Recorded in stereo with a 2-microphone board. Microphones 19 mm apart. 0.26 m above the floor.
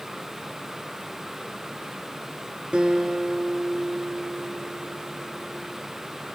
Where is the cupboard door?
No cupboard door in this recording.